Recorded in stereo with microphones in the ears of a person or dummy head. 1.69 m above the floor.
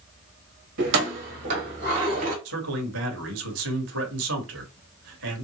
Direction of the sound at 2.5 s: 65° right (ahead or behind).